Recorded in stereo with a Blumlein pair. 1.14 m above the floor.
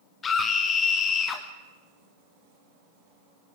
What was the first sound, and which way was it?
A scream, 20° left.